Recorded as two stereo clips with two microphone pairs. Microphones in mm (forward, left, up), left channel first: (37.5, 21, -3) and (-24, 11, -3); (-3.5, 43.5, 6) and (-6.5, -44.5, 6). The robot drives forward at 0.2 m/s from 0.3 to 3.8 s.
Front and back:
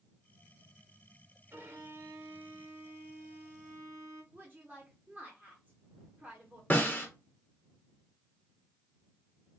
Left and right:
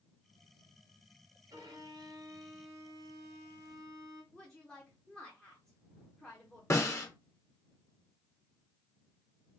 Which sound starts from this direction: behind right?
A violin, at 1.5 s.